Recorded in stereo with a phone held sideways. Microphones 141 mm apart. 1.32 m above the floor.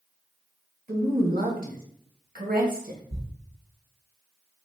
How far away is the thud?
About 0.7 m.